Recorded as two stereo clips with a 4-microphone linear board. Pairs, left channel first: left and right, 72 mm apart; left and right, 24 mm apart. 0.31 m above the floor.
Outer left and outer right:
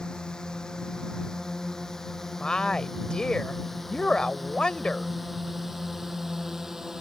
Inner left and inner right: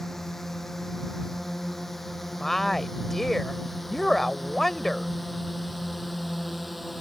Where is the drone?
10° left (ahead or behind); by 7.0 s 5° right (ahead or behind).